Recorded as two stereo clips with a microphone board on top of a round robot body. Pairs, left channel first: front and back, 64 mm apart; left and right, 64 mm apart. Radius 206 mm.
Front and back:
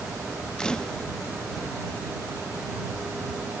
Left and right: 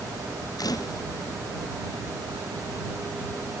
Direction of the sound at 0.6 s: 80° left.